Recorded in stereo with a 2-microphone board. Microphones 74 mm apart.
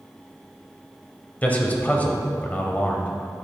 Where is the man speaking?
25° left (ahead or behind), 0.9 m.